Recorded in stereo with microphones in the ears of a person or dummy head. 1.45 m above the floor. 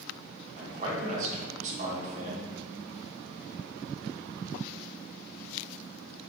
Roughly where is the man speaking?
Right.